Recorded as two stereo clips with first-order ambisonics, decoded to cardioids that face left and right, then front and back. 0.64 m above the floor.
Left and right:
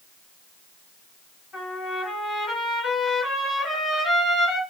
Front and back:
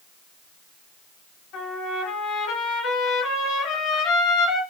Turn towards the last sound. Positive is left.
turn(degrees=25)